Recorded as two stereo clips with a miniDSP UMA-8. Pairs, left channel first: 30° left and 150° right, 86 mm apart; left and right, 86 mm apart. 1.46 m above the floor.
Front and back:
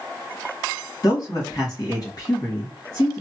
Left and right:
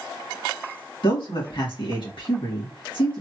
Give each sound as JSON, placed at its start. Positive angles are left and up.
{"t": 1.0, "sound": "a man speaking", "azimuth_deg": 70, "distance_m": 2.5}